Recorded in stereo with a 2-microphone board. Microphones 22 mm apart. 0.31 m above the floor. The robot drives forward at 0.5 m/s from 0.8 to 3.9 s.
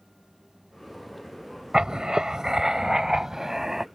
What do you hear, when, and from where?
1.7 s writing: 45° right (ahead or behind); by 3.9 s 25° right (ahead or behind)